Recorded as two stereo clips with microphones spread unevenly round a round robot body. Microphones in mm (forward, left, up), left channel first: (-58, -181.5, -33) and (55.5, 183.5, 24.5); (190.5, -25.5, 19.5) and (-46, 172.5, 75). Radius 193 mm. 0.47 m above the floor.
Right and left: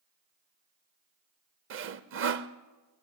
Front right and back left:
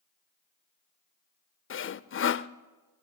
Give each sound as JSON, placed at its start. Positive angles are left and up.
{"t": 1.7, "sound": "sawing", "azimuth_deg": 10, "distance_m": 0.7}